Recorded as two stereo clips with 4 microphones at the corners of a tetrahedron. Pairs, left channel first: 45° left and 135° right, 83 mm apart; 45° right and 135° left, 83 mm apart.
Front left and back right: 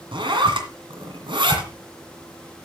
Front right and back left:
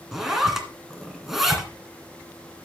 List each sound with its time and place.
0.1 s a zipper: 140° right, 2 m